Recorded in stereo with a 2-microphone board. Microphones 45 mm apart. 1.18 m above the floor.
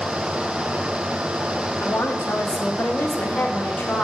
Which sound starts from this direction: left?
A woman speaking, at 1.8 s.